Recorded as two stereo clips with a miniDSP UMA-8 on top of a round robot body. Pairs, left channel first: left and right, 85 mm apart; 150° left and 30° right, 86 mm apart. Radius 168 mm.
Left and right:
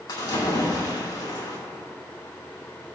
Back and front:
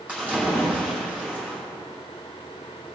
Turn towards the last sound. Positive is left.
turn(degrees=45)